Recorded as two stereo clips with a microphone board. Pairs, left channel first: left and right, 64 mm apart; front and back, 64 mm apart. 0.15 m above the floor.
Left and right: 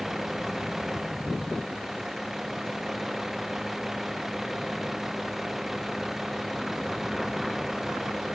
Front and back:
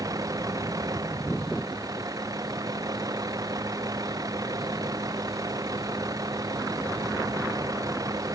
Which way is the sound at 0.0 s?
175° right.